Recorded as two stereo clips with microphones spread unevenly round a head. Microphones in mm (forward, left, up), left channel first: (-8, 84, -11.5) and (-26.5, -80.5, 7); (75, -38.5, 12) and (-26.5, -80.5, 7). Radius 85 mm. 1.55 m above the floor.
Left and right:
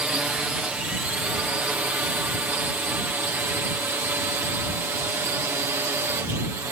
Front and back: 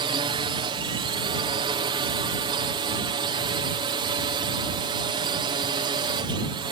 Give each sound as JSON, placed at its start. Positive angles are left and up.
{"t": 0.0, "sound": "a drone", "azimuth_deg": 180}